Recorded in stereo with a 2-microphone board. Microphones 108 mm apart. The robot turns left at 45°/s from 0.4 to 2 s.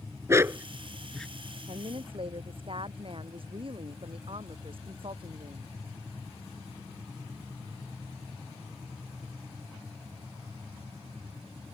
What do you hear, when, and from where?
0.3 s a dog barking: 25° right (ahead or behind); by 1.3 s 10° left (ahead or behind)
1.7 s a woman speaking: 70° right (ahead or behind); by 5.7 s 55° right (ahead or behind)